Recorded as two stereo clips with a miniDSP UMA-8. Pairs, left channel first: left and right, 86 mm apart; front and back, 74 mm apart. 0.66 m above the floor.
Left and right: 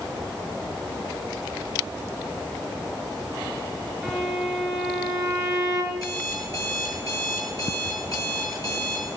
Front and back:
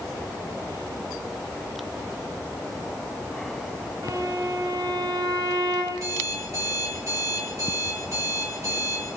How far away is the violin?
About 9 m.